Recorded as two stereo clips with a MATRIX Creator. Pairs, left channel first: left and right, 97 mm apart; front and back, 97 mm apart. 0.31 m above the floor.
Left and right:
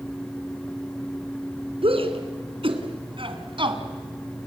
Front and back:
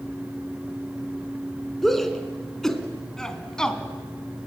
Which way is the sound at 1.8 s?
90° right.